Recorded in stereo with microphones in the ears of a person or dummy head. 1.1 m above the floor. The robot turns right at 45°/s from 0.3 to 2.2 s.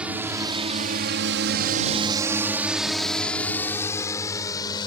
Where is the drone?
5° right (ahead or behind); by 4.9 s 25° left (ahead or behind).